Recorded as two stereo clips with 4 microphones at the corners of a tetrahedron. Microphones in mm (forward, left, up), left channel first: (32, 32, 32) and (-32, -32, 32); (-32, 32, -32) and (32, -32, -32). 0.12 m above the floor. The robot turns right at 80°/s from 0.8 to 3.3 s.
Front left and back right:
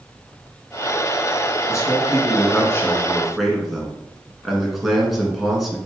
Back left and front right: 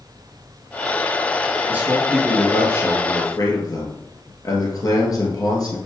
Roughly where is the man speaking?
Ahead.